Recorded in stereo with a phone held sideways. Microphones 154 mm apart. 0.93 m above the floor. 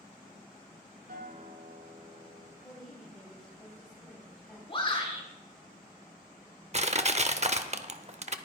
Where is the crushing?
45° right (ahead or behind), 0.7 m.